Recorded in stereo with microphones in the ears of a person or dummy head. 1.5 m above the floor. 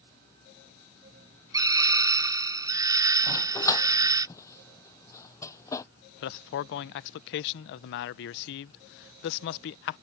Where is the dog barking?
20° left (ahead or behind).